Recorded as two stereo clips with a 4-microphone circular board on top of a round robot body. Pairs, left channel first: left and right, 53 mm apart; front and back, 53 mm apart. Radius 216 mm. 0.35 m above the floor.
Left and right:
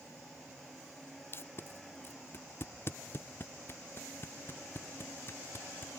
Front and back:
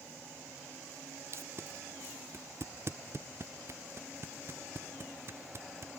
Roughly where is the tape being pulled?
Behind left.